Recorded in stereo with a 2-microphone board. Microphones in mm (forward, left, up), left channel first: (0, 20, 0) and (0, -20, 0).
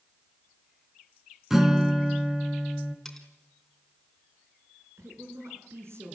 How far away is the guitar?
About 2.5 m.